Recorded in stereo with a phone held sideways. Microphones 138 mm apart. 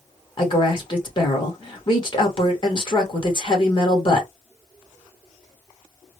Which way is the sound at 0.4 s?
35° left (ahead or behind).